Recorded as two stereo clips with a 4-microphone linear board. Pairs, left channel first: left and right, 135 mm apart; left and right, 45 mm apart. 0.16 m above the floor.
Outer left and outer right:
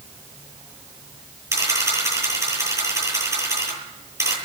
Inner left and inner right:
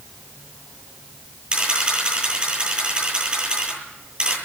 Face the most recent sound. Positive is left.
turn(degrees=-25)  # may be behind; listen again after turning